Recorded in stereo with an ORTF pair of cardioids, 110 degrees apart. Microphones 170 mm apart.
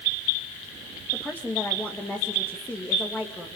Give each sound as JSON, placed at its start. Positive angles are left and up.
{"t": 1.1, "sound": "a woman speaking", "azimuth_deg": 10, "distance_m": 2.5}